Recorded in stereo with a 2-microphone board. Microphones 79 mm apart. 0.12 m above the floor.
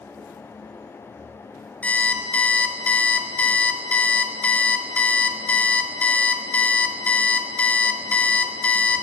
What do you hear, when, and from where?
1.8 s an alarm clock: 20° left (ahead or behind), 0.7 m